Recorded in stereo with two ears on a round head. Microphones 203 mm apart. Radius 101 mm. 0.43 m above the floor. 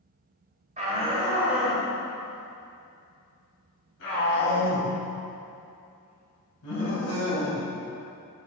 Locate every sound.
0.8 s a shout: 30° right (ahead or behind), 1.6 m; by 7.6 s 80° left, 5.5 m